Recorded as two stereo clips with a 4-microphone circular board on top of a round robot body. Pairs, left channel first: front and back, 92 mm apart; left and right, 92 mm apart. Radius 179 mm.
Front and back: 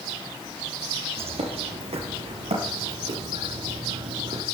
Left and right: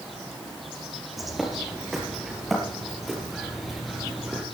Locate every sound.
1.2 s a bird: straight behind, 3.5 m